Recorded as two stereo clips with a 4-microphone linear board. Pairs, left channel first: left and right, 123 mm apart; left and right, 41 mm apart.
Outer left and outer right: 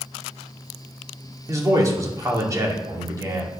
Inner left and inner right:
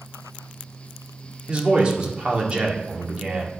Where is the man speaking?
25° right (ahead or behind), 2 m.